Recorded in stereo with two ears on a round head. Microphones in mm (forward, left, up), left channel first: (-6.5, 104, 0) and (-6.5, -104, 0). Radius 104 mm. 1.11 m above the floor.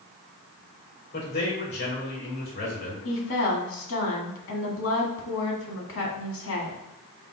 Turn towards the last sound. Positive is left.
turn(degrees=65)  # may be behind; listen again after turning